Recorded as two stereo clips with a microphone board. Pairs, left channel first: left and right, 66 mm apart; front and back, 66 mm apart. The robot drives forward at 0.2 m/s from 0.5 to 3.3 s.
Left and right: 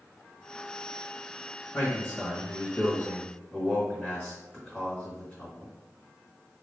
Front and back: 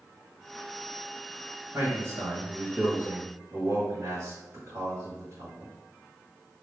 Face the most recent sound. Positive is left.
turn(degrees=145)